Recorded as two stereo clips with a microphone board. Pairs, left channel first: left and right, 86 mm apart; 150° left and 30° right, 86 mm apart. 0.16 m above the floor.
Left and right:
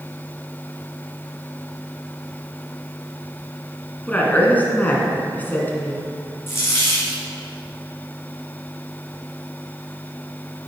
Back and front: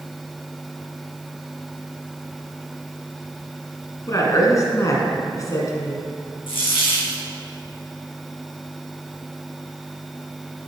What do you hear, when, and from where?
4.1 s a woman speaking: 150° left, 1.6 m
6.5 s a dropped coin: 150° left, 2 m